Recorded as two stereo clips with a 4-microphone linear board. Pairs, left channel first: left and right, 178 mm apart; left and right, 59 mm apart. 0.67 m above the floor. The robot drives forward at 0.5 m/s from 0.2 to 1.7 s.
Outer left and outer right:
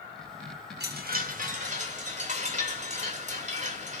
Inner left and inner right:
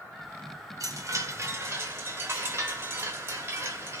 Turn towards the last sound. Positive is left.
turn(degrees=-45)  # may be behind; listen again after turning